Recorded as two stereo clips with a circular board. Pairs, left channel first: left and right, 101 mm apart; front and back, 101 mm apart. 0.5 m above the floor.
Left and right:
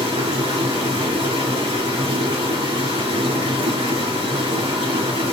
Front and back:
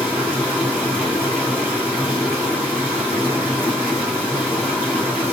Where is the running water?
75° right, 3.5 m.